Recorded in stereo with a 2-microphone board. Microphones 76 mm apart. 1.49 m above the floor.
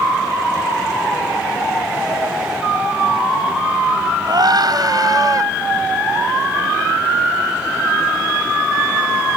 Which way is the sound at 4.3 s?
65° right (ahead or behind).